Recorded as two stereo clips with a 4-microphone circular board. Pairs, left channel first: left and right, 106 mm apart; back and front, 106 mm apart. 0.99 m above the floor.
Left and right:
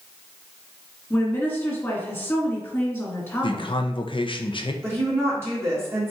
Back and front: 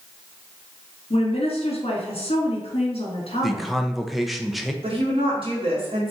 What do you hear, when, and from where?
1.1 s a woman speaking: 160° left, 1.7 m
3.4 s a man speaking: 90° left, 0.6 m
4.8 s a woman speaking: 25° right, 1.8 m